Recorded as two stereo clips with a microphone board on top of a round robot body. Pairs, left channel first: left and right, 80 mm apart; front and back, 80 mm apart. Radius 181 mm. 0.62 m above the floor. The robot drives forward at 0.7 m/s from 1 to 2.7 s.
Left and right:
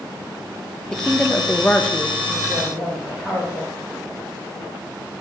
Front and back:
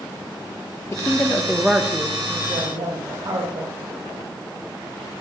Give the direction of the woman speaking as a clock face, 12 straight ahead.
11 o'clock.